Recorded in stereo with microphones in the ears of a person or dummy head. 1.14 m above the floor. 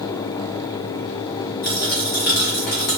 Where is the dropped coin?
50° left (ahead or behind), 0.5 m.